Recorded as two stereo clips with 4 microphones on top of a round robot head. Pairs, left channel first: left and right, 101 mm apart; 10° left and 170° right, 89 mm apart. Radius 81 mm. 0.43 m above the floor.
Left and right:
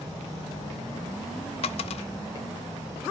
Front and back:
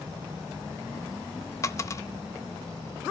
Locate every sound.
1.6 s a dropped coin: 65° left, 0.5 m